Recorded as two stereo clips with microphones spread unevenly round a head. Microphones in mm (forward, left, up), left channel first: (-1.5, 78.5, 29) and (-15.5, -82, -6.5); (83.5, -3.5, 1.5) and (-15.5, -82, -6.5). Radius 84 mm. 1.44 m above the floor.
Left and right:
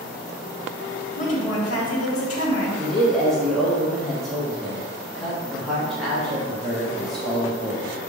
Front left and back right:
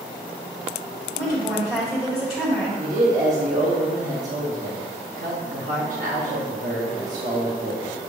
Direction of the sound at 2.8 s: Straight behind.